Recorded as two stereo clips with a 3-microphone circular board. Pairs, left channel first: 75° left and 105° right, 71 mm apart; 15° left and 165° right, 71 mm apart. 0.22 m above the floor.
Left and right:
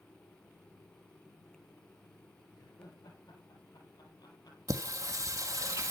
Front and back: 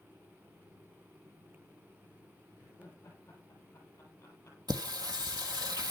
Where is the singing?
145° right, 1.7 m.